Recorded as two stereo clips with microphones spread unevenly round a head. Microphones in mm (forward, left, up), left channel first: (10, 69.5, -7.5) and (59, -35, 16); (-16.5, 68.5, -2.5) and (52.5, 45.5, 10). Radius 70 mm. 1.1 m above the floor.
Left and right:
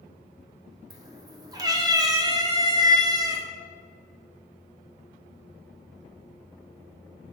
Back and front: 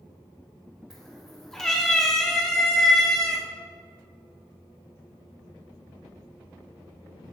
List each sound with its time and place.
0.9 s a cat meowing: 105° right, 0.7 m